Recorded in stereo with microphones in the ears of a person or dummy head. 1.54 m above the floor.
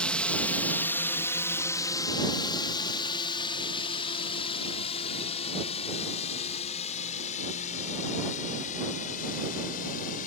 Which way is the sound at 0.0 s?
5° left (ahead or behind).